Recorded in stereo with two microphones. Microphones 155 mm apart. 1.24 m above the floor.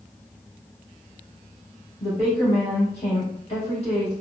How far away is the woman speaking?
About 1.8 m.